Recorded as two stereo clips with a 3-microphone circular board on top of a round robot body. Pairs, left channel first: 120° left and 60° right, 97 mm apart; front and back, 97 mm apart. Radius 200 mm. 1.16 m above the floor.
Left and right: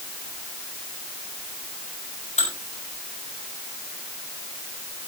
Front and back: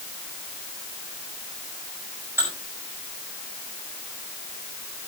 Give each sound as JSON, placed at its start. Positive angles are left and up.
{"t": 2.4, "sound": "dishes clattering", "azimuth_deg": 110, "distance_m": 5.0}